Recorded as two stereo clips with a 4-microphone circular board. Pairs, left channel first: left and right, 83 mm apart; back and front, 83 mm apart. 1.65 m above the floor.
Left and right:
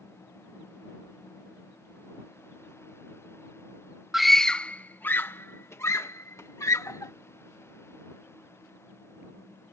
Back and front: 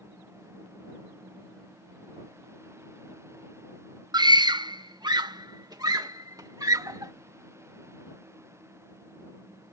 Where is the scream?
5° right; by 7.1 s 40° left.